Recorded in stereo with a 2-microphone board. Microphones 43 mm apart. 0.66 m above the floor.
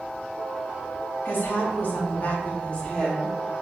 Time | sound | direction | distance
1.2 | a woman speaking | 55° left (ahead or behind) | 1.2 m